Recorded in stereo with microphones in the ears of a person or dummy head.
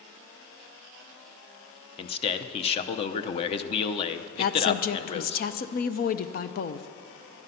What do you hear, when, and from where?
2.0 s a man speaking: 35° left (ahead or behind), 0.7 m
4.4 s a woman speaking: 50° left (ahead or behind), 0.6 m